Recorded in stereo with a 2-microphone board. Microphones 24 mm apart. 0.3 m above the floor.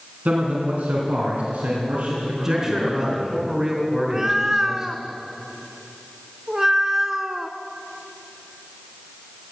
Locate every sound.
0.2 s a man speaking: 70° right (ahead or behind), 2.5 m; by 3.3 s 75° right (ahead or behind), 4 m
2.3 s a man speaking: 15° right (ahead or behind), 3.5 m
4.0 s a cat meowing: 20° right (ahead or behind), 0.6 m